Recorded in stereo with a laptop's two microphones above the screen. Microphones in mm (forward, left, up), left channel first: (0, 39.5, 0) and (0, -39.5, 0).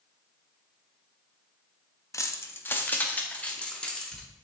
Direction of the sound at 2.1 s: 40° left (ahead or behind).